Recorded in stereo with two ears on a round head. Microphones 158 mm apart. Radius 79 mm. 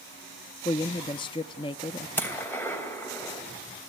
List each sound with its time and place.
0.7 s a woman speaking: 25° left (ahead or behind), 0.5 m
2.2 s a gunshot: 15° left (ahead or behind), 2.5 m